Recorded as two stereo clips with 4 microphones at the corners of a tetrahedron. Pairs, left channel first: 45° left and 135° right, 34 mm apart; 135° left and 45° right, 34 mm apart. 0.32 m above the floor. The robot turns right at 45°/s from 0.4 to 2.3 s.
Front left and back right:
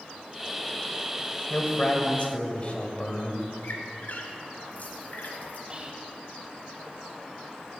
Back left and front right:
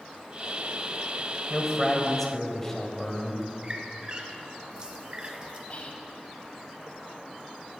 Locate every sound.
1.5 s a man speaking: 25° left, 1.3 m; by 3.5 s 65° left, 1.3 m
3.6 s a squeak: 15° left, 1.0 m
5.7 s whispering: 170° left, 1.3 m